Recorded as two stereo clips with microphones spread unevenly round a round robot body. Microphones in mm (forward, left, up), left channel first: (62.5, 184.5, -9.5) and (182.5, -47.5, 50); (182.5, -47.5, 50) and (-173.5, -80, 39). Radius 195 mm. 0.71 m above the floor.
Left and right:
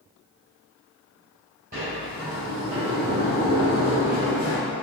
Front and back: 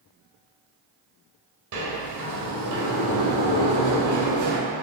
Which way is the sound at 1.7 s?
135° right.